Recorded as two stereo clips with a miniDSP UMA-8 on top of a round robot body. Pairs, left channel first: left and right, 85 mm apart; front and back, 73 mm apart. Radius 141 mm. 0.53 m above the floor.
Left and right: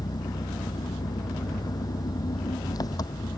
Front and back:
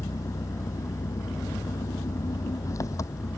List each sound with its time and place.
0.0 s an engine running: 45° left